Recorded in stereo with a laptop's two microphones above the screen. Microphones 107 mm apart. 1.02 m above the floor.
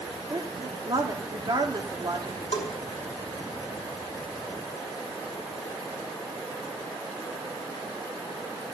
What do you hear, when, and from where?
0.3 s a woman speaking: 40° right (ahead or behind), 2 m
2.5 s a bell: 65° left (ahead or behind), 2 m